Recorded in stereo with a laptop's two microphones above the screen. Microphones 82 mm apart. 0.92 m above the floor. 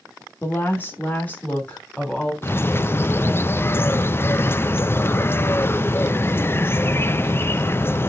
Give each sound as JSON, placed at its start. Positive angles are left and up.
{"t": 0.4, "sound": "a woman speaking", "side_deg": 30, "distance_m": 1.7}
{"t": 2.4, "sound": "a bird", "side_deg": 30, "distance_m": 0.5}